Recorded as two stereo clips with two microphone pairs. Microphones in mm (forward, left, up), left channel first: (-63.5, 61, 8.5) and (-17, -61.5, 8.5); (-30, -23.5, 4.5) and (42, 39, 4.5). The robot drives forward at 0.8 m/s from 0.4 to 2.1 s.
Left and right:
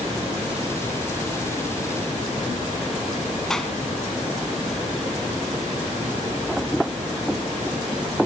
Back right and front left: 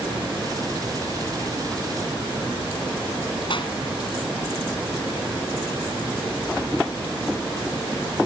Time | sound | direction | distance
3.5 | a clap | 165° right | 3 m